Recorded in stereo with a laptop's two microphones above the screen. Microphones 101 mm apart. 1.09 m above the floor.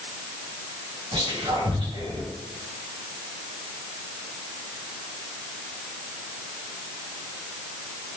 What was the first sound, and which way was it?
Whispering, 55° right (ahead or behind).